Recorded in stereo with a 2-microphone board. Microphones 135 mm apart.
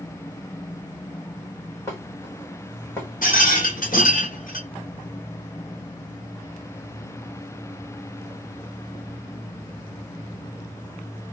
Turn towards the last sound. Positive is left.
turn(degrees=75)  # may be behind; listen again after turning